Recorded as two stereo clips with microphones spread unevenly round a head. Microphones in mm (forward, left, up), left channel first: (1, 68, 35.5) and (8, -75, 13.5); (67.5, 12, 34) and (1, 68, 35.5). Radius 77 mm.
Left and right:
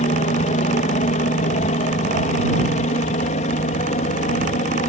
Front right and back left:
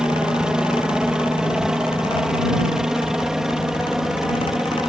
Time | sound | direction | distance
0.0 | a helicopter | 60° left | ?